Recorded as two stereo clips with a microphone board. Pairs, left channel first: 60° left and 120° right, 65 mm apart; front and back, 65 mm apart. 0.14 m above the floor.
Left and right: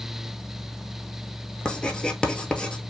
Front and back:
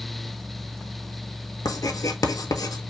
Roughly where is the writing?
Ahead.